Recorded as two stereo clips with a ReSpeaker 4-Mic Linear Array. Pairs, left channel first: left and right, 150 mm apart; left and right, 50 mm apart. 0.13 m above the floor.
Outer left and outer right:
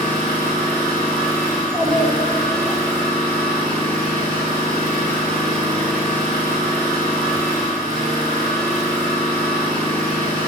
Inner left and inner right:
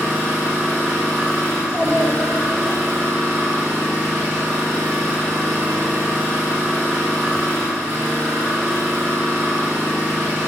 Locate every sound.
0.0 s an engine running: 55° right (ahead or behind), 7 m
1.5 s a child speaking: 15° right (ahead or behind), 7 m